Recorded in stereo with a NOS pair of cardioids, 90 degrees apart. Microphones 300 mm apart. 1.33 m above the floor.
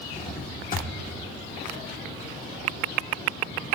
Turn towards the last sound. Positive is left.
turn(degrees=30)